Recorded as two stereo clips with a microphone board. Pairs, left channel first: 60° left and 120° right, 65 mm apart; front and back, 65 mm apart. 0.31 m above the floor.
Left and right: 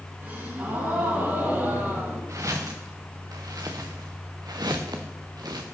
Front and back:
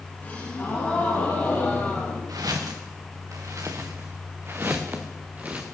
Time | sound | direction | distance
0.2 | a gasp | 65° right | 7.5 m
2.3 | footsteps | 155° right | 2.5 m